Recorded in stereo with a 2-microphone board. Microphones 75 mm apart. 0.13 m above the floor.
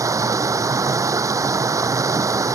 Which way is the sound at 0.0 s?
45° right (ahead or behind).